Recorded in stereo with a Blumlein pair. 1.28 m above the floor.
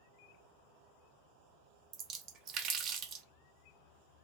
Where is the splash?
35° right, 0.5 m.